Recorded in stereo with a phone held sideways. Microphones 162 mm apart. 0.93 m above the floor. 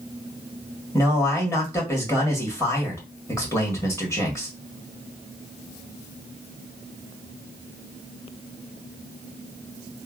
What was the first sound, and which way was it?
A man speaking, 15° left (ahead or behind).